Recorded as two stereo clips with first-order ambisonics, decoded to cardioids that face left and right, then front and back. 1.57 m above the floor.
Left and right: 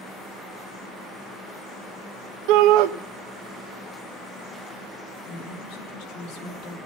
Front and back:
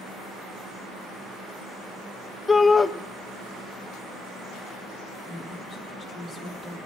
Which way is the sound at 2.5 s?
80° right.